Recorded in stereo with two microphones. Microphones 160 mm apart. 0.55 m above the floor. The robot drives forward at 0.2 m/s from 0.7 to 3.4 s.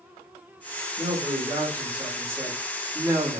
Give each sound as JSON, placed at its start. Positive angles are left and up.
{"t": 1.0, "sound": "a man speaking", "side_deg": -20, "distance_m": 1.3}